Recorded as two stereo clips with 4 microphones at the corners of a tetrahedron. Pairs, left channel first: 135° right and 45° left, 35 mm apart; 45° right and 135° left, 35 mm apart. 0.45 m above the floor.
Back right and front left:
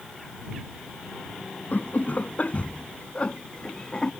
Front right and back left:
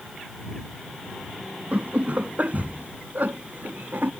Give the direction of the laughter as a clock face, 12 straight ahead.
6 o'clock.